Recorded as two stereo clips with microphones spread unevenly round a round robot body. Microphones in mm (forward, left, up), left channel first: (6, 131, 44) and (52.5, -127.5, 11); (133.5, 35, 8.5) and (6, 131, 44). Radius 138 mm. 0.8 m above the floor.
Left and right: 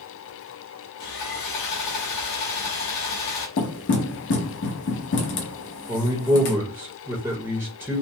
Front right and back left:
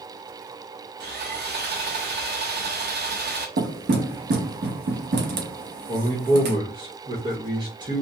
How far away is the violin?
No violin in this recording.